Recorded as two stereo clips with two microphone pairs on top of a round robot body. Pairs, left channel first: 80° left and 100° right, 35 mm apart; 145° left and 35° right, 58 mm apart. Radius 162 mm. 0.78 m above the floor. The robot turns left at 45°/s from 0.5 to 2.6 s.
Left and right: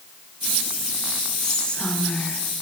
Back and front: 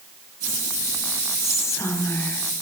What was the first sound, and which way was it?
Whispering, 160° left.